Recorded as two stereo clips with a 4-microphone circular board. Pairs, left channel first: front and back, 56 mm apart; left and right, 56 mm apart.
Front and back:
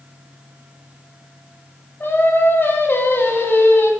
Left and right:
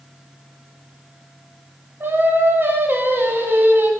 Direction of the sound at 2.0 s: 45° right.